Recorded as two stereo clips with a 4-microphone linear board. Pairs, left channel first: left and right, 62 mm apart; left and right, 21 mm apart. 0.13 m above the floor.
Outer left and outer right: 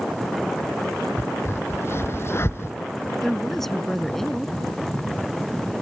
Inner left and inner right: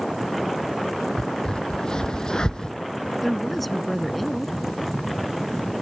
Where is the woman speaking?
5° left (ahead or behind).